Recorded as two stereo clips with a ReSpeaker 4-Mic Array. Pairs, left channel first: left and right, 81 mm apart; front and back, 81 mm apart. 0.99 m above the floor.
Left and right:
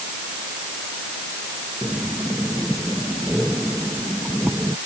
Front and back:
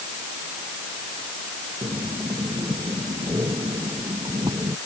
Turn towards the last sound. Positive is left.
turn(degrees=-155)